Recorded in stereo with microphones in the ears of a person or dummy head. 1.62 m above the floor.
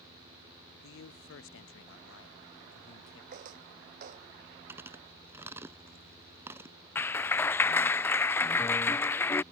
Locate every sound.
0.8 s a man speaking: 65° left (ahead or behind)
3.3 s footsteps: 45° right (ahead or behind)
4.7 s chewing: 15° right (ahead or behind)
7.0 s a clap: 15° left (ahead or behind)